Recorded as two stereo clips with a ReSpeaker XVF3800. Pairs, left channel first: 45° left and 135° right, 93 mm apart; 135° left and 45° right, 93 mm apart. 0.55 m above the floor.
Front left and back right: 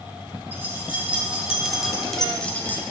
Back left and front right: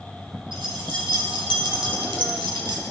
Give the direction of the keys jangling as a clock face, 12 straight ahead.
2 o'clock.